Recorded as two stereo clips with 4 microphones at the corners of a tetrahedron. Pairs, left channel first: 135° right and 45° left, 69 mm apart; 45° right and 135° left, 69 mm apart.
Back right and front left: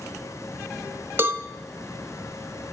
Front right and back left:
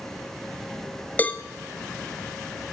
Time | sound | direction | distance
1.2 | a cowbell | 10° left | 0.7 m